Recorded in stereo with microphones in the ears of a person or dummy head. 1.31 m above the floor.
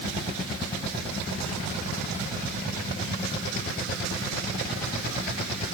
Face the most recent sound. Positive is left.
No sound to turn to.